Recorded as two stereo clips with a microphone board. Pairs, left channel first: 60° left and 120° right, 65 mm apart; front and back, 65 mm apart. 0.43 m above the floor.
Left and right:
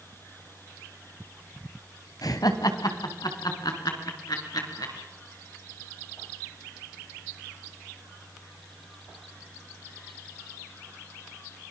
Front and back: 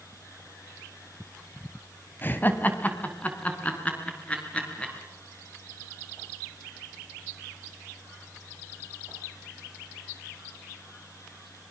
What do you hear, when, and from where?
2.2 s laughter: 60° left, 2 m; by 4.9 s 75° left, 6 m